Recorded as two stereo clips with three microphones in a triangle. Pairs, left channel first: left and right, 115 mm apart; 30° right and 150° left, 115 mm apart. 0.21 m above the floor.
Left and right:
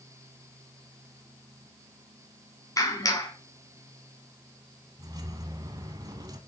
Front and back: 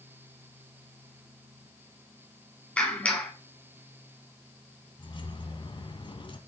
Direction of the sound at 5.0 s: 50° right.